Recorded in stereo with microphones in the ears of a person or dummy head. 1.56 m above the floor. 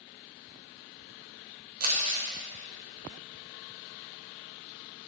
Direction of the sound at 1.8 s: 40° right (ahead or behind).